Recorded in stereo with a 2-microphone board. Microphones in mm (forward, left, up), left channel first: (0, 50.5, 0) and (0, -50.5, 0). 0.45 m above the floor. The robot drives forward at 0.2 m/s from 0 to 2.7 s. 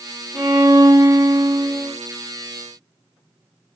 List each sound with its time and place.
0.3 s a violin: 50° right (ahead or behind), 2.0 m